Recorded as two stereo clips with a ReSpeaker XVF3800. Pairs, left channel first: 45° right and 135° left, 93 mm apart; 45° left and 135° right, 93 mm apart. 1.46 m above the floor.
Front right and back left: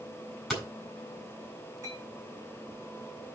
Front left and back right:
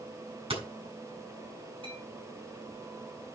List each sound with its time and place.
0.5 s hammering: 135° right, 4 m
1.8 s a clink: 165° right, 6 m